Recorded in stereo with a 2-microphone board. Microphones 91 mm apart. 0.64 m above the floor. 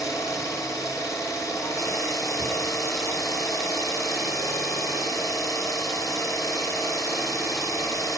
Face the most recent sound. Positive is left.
turn(degrees=40)  # may be behind; listen again after turning